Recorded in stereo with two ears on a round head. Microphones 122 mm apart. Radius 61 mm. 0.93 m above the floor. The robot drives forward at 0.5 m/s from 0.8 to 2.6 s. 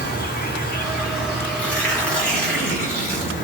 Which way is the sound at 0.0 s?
75° left (ahead or behind).